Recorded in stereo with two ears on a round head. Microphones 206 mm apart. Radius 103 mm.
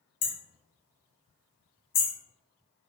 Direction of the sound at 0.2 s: 40° left (ahead or behind).